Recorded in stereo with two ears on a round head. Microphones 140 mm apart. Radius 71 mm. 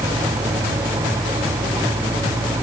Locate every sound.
Only background noise.